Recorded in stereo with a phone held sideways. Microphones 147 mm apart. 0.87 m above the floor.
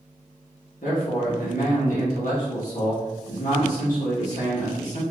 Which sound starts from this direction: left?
A man speaking, at 0.8 s.